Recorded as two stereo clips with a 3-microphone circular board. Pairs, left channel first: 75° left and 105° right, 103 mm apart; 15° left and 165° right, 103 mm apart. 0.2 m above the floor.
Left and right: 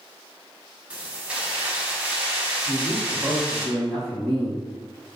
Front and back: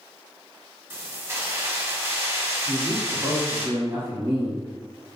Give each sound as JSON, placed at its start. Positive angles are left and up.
{"t": 0.9, "sound": "keys jangling", "azimuth_deg": -165, "distance_m": 0.8}
{"t": 2.7, "sound": "a man speaking", "azimuth_deg": 170, "distance_m": 1.4}